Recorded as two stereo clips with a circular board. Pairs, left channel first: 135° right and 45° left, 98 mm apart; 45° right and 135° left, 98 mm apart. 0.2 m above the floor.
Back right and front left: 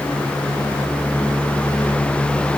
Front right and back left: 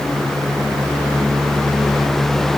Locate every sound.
Only background noise.